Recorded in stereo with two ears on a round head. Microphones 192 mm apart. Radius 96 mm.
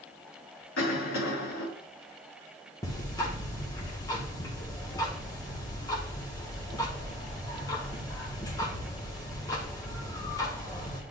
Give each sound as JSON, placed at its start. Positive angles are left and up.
{"t": 0.8, "sound": "a cough", "side_deg": 75, "distance_m": 4.0}
{"t": 2.8, "sound": "ticking", "side_deg": 20, "distance_m": 1.7}